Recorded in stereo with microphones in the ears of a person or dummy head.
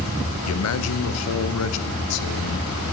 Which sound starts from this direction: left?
A man speaking, at 0.5 s.